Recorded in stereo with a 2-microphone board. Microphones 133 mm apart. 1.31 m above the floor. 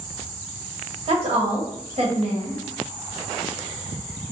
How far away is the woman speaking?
About 1.2 m.